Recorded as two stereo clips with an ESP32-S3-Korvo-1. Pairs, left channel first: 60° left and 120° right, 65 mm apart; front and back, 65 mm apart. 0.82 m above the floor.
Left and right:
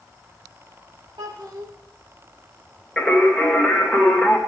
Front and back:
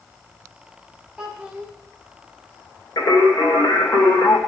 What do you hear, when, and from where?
1.2 s a child speaking: 105° right, 1.7 m
3.0 s singing: 30° right, 2.5 m